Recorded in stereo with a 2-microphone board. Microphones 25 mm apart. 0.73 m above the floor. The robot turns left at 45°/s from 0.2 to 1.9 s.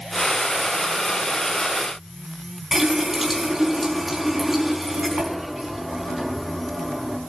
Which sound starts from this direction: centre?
A running tap, at 2.7 s.